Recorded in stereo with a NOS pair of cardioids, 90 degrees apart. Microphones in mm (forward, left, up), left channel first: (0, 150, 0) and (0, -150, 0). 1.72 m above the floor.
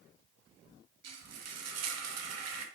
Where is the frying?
60° right, 0.9 m.